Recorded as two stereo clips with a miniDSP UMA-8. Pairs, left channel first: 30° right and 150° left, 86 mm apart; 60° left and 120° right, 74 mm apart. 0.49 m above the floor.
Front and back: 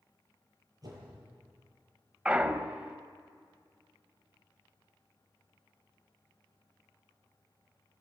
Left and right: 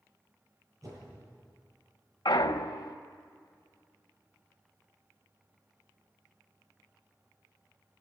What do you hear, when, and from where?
0.8 s a whoosh: 165° right, 9.5 m
2.2 s a clunk: 75° left, 0.9 m